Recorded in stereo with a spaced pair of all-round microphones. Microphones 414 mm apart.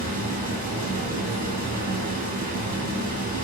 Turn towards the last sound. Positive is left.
turn(degrees=-20)  # may be behind; listen again after turning